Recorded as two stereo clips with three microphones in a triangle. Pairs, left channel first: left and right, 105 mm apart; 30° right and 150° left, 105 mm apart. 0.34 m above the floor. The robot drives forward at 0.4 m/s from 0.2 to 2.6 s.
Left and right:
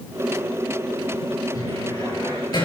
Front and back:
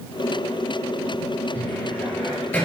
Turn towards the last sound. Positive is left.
turn(degrees=45)